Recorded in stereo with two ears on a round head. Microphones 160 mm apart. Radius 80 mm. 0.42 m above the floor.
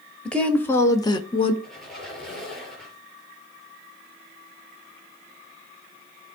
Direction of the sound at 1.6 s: 5° left (ahead or behind).